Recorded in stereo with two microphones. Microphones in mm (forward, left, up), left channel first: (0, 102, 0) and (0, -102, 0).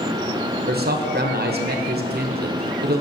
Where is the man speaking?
50° right (ahead or behind), 0.6 m.